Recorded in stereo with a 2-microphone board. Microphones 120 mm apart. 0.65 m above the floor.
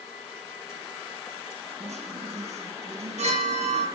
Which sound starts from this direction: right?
A chime, at 1.8 s.